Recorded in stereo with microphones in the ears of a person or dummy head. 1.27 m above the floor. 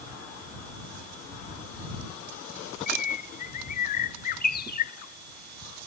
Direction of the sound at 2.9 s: 55° left (ahead or behind).